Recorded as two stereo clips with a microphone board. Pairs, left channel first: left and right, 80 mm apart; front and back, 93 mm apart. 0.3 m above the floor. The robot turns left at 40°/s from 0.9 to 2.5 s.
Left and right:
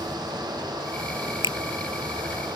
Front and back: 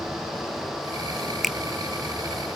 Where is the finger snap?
90° left; by 1.6 s 85° left.